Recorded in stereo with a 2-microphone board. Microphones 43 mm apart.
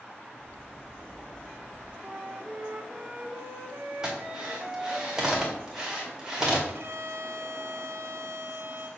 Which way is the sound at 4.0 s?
15° right (ahead or behind).